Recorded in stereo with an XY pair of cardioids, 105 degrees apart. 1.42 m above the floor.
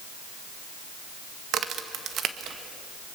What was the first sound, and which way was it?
A crack, 65° right.